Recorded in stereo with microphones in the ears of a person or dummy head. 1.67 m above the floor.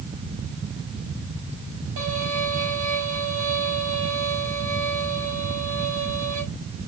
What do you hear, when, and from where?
2.0 s a violin: 75° right (ahead or behind), 5.5 m